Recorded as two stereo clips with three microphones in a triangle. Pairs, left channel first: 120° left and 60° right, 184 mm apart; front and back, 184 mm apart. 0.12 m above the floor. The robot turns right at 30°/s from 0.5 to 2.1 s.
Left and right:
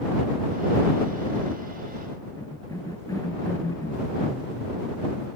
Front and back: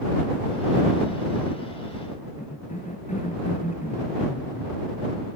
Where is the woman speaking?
No woman speaking in this recording.